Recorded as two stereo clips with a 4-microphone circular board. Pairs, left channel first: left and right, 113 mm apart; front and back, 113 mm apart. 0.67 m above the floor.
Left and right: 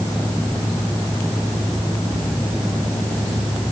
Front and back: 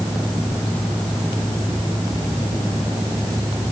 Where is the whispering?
I don't hear whispering.